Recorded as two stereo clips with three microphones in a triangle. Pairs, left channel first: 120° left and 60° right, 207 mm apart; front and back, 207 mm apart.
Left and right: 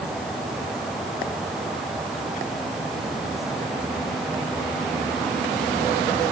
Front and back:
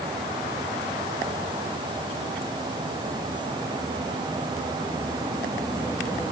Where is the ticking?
No ticking in this recording.